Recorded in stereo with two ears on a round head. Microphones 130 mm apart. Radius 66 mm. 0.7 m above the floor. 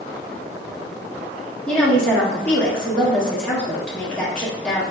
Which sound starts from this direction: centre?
A woman speaking, at 1.7 s.